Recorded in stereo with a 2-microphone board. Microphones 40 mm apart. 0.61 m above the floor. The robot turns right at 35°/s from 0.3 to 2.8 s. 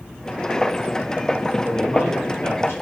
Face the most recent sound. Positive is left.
turn(degrees=75)